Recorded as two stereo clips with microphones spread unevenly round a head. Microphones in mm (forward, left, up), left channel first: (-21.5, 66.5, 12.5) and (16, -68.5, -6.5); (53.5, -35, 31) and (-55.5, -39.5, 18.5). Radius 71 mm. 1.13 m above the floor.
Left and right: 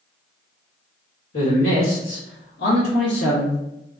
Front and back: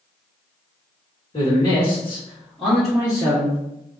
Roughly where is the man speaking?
Ahead left.